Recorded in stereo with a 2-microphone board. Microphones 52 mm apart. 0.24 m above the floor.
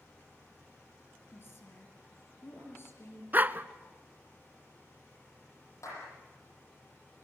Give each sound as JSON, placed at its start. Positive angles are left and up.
{"t": 1.3, "sound": "a woman speaking", "side_deg": 50, "distance_m": 5.0}
{"t": 3.3, "sound": "a dog barking", "side_deg": -35, "distance_m": 0.7}
{"t": 5.8, "sound": "a clap", "side_deg": 75, "distance_m": 9.0}